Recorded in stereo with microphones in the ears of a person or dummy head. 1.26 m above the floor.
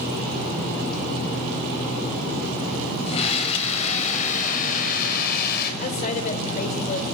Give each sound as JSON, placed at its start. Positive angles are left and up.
{"t": 3.1, "sound": "a scream", "side_deg": 40, "distance_m": 8.0}
{"t": 5.8, "sound": "a woman speaking", "side_deg": 45, "distance_m": 4.0}